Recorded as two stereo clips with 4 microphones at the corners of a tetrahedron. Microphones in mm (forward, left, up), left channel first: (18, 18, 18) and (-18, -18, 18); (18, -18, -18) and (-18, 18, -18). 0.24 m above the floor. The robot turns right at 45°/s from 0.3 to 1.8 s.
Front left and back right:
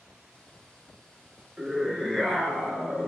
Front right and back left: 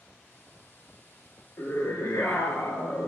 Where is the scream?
60° right, 4 m; by 3.1 s 50° right, 4 m.